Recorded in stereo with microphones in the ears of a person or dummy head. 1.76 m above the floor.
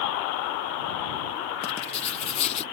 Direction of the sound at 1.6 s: 30° left (ahead or behind).